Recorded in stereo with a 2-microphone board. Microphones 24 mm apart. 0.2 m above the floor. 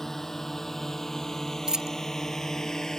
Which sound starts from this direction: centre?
A drone, at 0.0 s.